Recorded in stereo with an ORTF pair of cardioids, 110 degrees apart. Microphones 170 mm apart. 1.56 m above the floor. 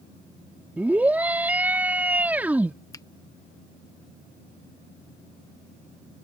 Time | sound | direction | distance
0.8 | a scream | 10° right | ?
2.9 | a finger snap | 20° left | ?